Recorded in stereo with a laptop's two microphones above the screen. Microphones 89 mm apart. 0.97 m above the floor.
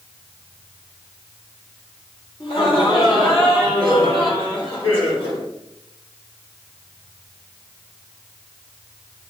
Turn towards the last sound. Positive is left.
turn(degrees=70)  # may be behind; listen again after turning